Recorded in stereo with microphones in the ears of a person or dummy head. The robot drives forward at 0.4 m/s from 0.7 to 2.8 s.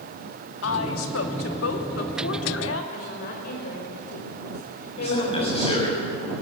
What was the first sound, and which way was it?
A woman speaking, 80° left.